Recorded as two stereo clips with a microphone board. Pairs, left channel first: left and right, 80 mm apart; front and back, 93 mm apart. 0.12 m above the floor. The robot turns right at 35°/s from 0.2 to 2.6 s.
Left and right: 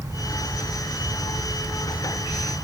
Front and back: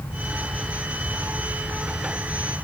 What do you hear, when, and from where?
Only background noise.